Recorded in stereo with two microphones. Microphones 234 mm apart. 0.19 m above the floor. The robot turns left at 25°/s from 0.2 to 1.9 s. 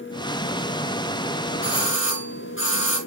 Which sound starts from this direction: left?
A doorbell, at 1.6 s.